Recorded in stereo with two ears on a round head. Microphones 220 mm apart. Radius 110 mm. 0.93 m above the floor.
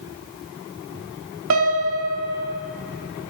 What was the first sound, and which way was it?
A piano, 60° right (ahead or behind).